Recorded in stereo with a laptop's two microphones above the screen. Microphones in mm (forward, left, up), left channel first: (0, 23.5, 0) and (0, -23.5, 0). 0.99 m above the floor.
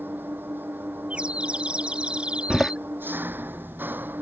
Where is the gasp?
No gasp in this recording.